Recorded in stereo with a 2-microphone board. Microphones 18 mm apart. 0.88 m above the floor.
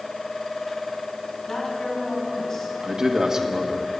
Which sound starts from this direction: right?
A man speaking, at 2.8 s.